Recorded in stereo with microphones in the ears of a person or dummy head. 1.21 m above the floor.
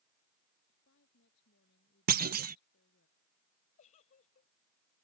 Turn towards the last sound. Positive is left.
turn(degrees=45)  # may be behind; listen again after turning